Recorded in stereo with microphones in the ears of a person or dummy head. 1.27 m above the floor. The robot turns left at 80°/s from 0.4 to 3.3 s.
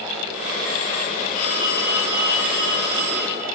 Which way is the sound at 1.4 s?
40° left.